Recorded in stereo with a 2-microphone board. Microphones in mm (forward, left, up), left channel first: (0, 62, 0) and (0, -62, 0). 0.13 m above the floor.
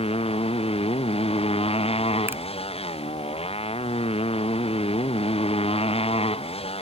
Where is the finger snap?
15° right (ahead or behind).